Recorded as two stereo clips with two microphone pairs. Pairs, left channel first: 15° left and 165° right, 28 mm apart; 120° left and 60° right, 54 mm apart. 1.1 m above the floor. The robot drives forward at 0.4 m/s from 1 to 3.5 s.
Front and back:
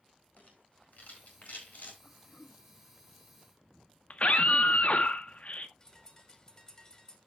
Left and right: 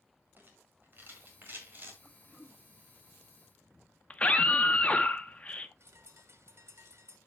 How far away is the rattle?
About 4 m.